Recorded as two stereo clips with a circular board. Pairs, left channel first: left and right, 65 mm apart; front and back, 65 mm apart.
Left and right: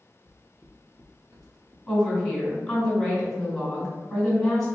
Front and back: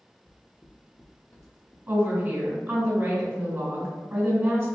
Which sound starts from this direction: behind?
A woman speaking, at 1.9 s.